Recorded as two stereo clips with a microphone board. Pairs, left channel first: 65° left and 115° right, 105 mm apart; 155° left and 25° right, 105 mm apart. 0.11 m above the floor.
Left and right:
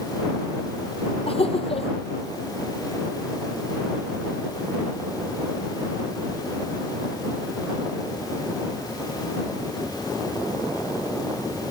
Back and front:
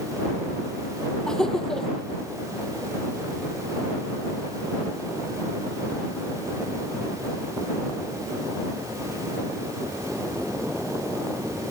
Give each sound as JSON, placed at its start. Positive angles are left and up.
{"t": 1.3, "sound": "laughter", "azimuth_deg": 75}